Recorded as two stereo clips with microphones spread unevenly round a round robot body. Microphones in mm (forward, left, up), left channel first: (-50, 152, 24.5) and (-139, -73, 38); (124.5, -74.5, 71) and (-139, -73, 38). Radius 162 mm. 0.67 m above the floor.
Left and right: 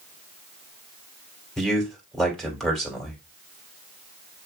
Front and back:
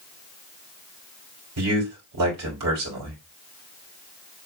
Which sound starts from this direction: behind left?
A man speaking, at 1.6 s.